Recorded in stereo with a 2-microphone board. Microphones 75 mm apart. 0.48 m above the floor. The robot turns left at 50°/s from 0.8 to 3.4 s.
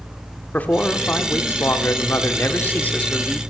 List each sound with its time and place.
0.5 s a man speaking: 145° left, 0.9 m; by 3.4 s 15° left, 0.9 m